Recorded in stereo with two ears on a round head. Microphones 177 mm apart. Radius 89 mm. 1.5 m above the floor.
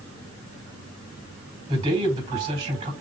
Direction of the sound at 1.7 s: 35° right (ahead or behind).